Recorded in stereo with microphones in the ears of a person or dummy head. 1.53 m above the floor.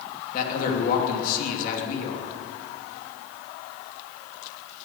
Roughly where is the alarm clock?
I don't hear an alarm clock.